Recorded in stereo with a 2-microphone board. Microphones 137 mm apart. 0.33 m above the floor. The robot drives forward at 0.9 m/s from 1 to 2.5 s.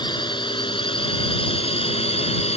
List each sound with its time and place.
0.0 s a drone: 35° left (ahead or behind); by 2.6 s 50° left (ahead or behind)